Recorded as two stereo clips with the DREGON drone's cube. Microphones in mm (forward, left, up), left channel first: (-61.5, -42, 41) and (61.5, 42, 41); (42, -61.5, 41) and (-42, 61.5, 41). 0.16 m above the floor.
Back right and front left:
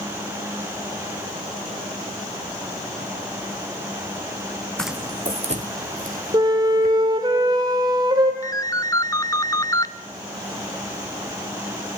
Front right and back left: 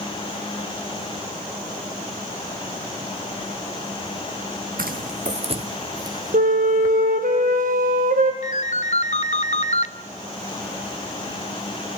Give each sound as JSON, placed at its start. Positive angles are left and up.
{"t": 4.8, "sound": "footsteps", "azimuth_deg": 130, "distance_m": 0.6}
{"t": 6.3, "sound": "a flute", "azimuth_deg": 95, "distance_m": 2.5}
{"t": 8.4, "sound": "a ringtone", "azimuth_deg": -80, "distance_m": 0.7}